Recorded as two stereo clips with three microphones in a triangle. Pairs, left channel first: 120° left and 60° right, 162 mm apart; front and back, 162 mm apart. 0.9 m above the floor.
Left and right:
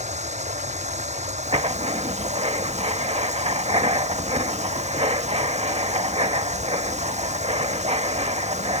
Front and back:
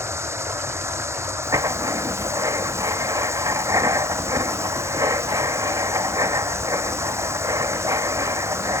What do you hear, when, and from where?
0.0 s running water: 105° right
1.4 s writing: 115° right